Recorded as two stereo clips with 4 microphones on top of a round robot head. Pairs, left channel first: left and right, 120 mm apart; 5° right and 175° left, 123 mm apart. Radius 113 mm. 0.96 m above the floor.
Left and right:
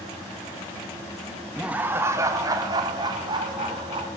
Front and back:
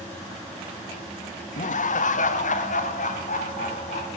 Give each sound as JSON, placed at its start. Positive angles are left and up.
{"t": 1.6, "sound": "laughter", "azimuth_deg": -5, "distance_m": 1.0}